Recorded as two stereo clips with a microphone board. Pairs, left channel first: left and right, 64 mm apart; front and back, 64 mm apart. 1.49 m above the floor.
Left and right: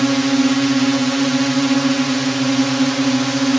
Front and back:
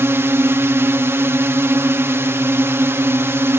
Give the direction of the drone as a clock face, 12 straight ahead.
6 o'clock.